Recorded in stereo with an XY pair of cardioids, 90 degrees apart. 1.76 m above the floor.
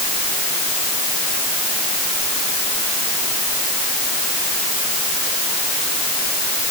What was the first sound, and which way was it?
Only background noise.